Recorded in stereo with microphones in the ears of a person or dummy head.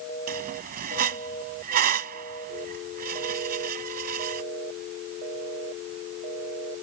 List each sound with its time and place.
0.3 s a squeak: 45° right (ahead or behind)